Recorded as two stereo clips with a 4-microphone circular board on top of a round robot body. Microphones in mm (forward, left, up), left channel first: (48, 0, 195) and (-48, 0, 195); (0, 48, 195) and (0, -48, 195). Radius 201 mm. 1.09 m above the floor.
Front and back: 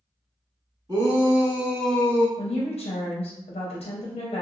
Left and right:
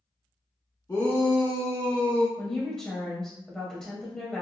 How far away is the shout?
About 1.6 m.